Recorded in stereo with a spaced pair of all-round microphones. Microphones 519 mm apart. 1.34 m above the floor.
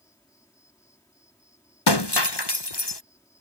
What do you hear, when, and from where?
0.0 s an insect: 5° left (ahead or behind)
1.9 s breaking glass: 50° left (ahead or behind)